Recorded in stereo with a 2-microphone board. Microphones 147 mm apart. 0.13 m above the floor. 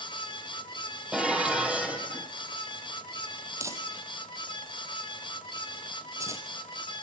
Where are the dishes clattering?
5° right (ahead or behind), 3 m.